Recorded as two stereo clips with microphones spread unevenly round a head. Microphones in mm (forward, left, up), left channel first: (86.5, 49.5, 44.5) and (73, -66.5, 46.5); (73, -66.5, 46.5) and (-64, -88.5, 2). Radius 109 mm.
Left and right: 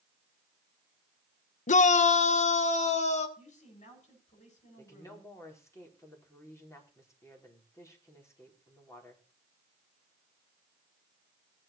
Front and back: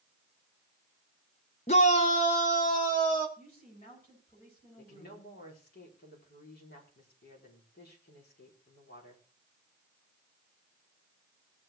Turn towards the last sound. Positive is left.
turn(degrees=15)